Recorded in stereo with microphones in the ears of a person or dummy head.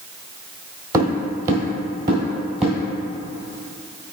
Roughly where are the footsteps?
Right.